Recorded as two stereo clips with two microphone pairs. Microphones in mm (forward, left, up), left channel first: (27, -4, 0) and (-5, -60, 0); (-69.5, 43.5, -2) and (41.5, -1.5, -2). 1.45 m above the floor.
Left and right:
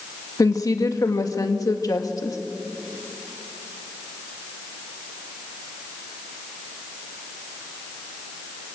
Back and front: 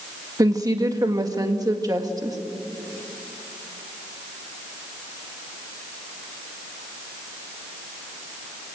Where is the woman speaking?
35° left, 1.9 m.